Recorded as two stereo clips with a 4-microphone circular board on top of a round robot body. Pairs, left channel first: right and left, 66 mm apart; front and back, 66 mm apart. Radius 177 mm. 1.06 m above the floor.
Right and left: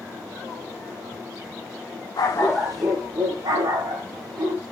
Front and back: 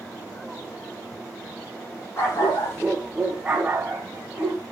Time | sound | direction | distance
2.2 | a dog barking | 50° right | 1.0 m